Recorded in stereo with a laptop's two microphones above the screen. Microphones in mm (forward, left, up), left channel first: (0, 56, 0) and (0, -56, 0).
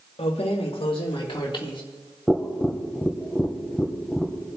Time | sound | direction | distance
0.2 | keys jangling | 70° left (ahead or behind) | 1.0 m
2.3 | tapping | 5° left (ahead or behind) | 1.3 m